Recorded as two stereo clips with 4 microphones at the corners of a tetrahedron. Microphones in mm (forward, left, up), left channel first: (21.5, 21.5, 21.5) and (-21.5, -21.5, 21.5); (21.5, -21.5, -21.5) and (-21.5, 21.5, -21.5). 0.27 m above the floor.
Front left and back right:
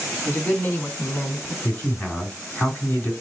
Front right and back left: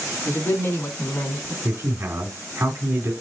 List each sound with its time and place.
0.2 s a man speaking: 15° right, 2.5 m; by 1.5 s 5° left, 2.0 m
1.6 s a man speaking: 105° left, 2.5 m